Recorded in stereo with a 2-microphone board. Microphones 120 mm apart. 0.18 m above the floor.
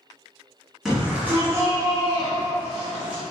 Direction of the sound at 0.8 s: Centre (ahead or behind).